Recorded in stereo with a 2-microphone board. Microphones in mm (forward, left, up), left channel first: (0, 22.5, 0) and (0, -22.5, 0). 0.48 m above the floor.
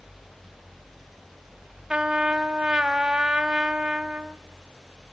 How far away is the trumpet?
About 0.9 m.